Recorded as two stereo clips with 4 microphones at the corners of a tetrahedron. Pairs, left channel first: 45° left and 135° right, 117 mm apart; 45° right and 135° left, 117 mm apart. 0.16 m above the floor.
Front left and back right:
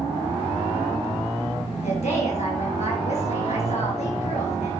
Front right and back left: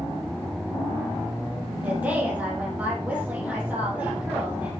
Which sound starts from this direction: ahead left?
A woman speaking, at 1.8 s.